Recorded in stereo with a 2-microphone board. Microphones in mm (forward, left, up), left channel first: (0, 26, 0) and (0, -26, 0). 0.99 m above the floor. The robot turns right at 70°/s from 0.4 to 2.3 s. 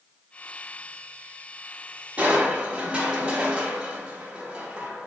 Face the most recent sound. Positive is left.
turn(degrees=-15)  # may be behind; listen again after turning